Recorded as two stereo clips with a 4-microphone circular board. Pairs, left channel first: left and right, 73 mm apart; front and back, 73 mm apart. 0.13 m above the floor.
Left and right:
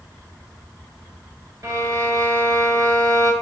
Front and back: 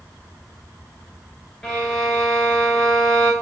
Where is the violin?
80° right, 0.9 m.